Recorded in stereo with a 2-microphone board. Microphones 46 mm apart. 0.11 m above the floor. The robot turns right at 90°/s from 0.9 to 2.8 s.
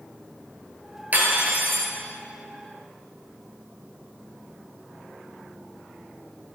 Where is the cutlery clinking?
125° right, 1.3 m; by 1.9 s 55° right, 1.3 m.